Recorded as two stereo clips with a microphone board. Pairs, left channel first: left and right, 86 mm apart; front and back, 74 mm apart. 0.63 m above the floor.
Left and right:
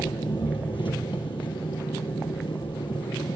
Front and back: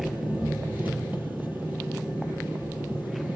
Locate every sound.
0.0 s an engine running: 115° left, 5 m